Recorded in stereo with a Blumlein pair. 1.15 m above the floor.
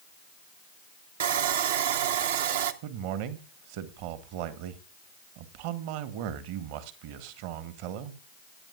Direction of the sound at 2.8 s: 45° right.